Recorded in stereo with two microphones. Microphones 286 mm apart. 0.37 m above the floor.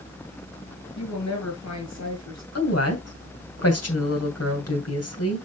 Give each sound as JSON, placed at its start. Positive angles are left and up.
{"t": 1.0, "sound": "a woman speaking", "side_deg": 70, "distance_m": 5.0}
{"t": 2.5, "sound": "a woman speaking", "side_deg": 55, "distance_m": 2.0}